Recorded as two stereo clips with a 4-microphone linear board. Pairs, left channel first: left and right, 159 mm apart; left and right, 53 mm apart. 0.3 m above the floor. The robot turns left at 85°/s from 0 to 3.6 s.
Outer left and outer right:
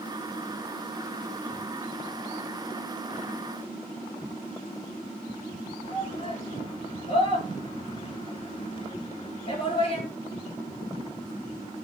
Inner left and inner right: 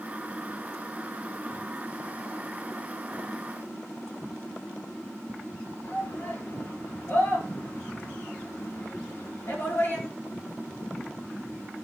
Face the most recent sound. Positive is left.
turn(degrees=35)  # may be behind; listen again after turning